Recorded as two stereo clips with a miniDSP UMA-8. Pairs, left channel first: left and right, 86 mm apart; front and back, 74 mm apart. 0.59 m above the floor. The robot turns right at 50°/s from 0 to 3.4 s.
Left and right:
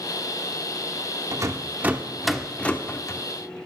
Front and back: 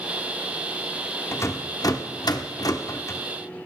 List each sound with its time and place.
1.3 s a rattle: 50° right, 0.6 m; by 3.2 s 45° left, 0.6 m